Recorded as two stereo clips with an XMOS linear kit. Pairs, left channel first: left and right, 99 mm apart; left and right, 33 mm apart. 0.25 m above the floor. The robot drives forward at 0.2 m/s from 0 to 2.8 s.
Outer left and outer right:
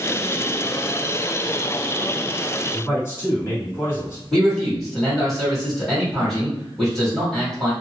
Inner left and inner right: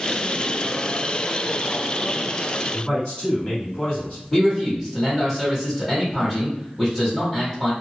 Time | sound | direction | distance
2.7 | a man speaking | 30° left (ahead or behind) | 1.9 m
4.3 | a man speaking | 5° left (ahead or behind) | 1.6 m